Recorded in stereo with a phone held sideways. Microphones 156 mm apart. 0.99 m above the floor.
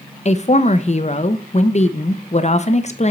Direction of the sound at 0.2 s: 45° left (ahead or behind).